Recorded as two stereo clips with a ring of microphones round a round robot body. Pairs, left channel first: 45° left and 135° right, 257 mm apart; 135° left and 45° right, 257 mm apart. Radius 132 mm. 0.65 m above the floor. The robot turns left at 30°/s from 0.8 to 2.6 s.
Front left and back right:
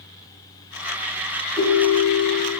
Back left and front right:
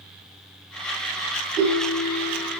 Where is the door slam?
No door slam in this recording.